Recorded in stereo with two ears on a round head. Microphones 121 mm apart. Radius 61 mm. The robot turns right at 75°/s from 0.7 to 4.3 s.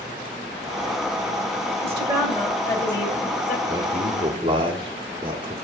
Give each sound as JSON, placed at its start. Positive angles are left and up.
{"t": 1.8, "sound": "a woman speaking", "azimuth_deg": -55, "distance_m": 2.0}
{"t": 3.7, "sound": "a man speaking", "azimuth_deg": -130, "distance_m": 1.5}